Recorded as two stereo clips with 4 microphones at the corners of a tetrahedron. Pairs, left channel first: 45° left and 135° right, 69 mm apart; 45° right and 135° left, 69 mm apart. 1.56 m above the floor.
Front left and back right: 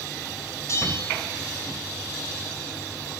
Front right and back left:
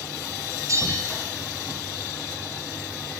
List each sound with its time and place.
0.7 s a bell: 90° left, 5.5 m